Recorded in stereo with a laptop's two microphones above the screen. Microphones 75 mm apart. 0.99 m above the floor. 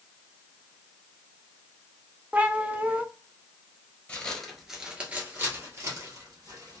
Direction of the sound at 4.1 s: 15° left (ahead or behind).